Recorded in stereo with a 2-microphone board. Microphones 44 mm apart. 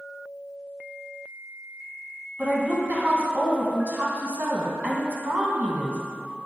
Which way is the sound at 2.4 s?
40° right (ahead or behind).